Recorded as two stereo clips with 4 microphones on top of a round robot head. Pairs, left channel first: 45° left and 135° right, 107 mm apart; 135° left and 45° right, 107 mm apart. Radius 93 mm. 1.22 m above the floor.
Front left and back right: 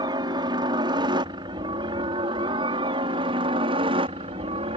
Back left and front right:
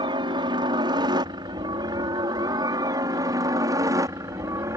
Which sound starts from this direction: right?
A helicopter, at 0.0 s.